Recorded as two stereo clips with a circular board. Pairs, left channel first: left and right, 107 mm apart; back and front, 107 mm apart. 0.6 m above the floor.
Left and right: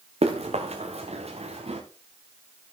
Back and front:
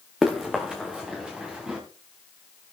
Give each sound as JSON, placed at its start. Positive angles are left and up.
{"t": 0.2, "sound": "running footsteps", "azimuth_deg": -85, "distance_m": 3.0}